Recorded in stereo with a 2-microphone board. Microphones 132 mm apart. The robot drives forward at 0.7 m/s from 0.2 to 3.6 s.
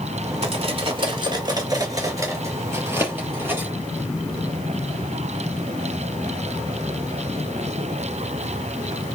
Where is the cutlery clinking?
50° right (ahead or behind), 1.0 m; by 3.7 s 15° right (ahead or behind), 2.5 m.